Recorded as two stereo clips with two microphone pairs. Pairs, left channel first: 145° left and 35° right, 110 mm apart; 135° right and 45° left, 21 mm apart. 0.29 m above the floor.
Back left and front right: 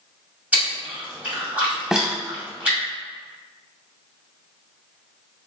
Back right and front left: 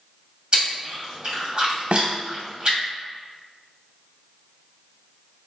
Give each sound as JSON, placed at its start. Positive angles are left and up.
{"t": 0.5, "sound": "chewing", "azimuth_deg": 35, "distance_m": 2.0}
{"t": 1.9, "sound": "a snare drum", "azimuth_deg": 45, "distance_m": 0.5}